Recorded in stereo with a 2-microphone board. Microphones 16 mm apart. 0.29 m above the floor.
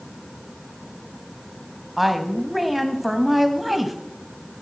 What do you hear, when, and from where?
2.0 s a woman speaking: 15° right (ahead or behind), 1.9 m